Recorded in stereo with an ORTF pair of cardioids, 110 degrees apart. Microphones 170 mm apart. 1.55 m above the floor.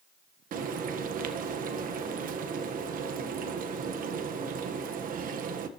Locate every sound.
0.5 s frying: 55° right, 1.6 m